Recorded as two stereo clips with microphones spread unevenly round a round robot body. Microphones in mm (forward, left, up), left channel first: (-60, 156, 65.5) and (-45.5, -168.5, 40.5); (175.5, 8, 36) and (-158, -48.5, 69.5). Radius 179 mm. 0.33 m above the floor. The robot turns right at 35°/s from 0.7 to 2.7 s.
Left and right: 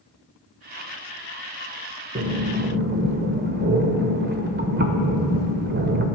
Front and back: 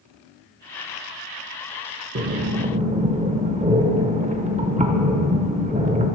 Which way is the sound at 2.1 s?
125° right.